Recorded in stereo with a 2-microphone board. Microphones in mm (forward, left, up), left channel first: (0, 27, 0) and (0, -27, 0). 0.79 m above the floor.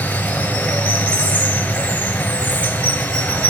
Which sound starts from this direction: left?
Running water, at 0.0 s.